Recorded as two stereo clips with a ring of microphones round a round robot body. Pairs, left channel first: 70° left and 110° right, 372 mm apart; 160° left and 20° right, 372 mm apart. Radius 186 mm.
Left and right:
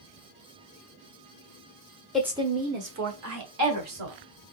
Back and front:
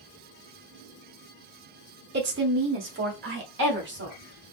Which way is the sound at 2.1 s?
20° right.